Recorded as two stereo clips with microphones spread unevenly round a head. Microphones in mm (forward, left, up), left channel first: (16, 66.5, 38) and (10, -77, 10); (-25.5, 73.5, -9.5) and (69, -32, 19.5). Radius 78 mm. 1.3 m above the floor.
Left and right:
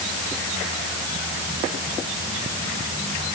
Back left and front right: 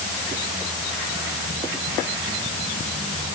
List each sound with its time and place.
Only background noise.